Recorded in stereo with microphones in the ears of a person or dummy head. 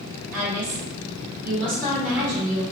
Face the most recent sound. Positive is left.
turn(degrees=-50)  # may be behind; listen again after turning